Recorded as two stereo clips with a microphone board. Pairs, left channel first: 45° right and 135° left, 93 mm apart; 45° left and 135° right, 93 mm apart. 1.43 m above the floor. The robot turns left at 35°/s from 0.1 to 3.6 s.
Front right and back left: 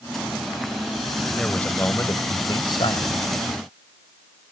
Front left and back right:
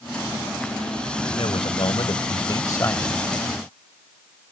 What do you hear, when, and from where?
1.3 s a man speaking: 40° left; by 3.2 s 30° right